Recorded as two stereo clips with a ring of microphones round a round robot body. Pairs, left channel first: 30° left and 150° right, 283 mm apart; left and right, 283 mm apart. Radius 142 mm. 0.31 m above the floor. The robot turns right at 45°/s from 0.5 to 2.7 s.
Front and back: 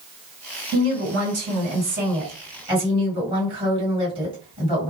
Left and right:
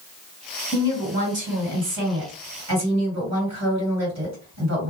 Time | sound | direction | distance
0.7 | a woman speaking | 175° right | 2 m